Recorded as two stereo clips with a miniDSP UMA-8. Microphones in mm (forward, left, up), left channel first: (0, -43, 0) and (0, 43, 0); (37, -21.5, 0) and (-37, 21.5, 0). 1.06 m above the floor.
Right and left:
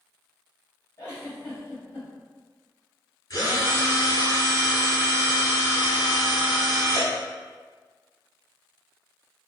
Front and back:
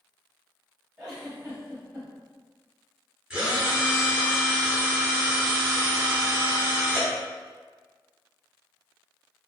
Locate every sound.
1.0 s a giggle: 150° right, 1.9 m
3.3 s a drill: 135° right, 1.8 m